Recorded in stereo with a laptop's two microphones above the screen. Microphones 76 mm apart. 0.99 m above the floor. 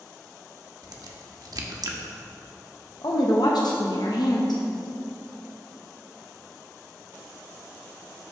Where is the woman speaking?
70° left (ahead or behind), 0.7 m.